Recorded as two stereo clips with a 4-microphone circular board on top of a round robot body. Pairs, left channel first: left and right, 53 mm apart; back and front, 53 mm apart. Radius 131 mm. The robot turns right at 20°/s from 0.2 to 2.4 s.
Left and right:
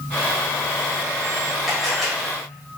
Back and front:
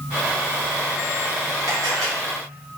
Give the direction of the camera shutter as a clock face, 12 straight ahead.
12 o'clock.